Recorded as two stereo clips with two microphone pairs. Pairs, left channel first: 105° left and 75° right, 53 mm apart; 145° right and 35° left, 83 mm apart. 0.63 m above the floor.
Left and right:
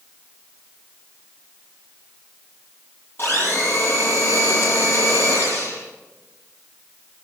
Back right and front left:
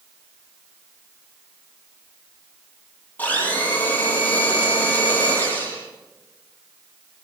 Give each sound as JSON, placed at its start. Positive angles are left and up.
{"t": 3.2, "sound": "a blender", "azimuth_deg": 145, "distance_m": 7.0}